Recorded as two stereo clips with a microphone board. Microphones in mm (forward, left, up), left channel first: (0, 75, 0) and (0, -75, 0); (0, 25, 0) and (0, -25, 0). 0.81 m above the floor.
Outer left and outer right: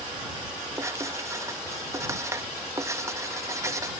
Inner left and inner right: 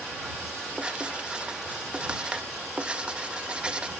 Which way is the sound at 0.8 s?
20° right (ahead or behind).